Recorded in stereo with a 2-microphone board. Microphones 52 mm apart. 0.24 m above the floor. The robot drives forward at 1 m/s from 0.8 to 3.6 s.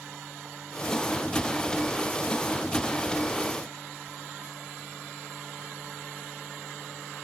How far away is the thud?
I don't hear a thud.